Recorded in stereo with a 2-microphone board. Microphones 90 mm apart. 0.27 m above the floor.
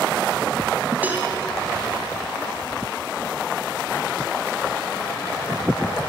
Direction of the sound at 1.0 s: 20° right (ahead or behind).